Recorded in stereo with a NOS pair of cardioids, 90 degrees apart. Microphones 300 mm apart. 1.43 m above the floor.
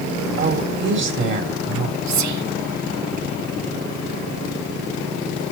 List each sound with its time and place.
0.4 s a woman speaking: 40° right, 3.5 m
2.1 s whispering: 65° right, 1.5 m